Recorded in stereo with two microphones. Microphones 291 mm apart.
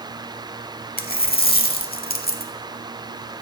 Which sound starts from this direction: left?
A dropped coin, at 1.0 s.